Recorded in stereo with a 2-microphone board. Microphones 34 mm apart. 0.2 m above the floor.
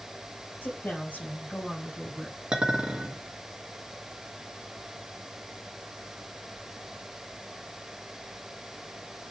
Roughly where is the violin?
I don't hear a violin.